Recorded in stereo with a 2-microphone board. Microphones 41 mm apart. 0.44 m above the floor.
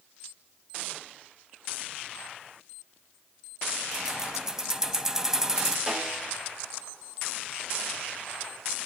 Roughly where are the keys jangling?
Centre.